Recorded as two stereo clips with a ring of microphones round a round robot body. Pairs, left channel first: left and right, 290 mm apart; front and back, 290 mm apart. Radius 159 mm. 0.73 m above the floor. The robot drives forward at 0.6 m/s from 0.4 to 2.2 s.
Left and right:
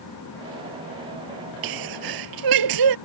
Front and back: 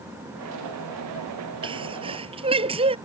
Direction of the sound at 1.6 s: 105° right.